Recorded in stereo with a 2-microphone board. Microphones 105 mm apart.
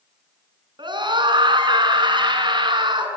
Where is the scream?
50° right (ahead or behind), 7 m.